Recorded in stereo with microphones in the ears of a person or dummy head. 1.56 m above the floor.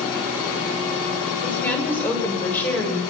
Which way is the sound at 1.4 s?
15° left (ahead or behind).